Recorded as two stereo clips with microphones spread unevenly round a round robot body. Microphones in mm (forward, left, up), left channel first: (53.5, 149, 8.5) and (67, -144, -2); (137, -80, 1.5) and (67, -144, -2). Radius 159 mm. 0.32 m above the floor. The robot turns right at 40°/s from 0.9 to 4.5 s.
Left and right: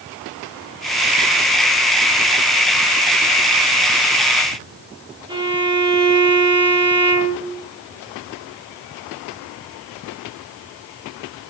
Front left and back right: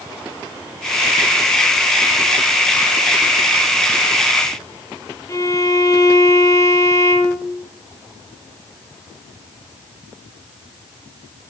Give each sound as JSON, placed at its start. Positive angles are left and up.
{"t": 5.3, "sound": "a violin", "azimuth_deg": -15, "distance_m": 7.0}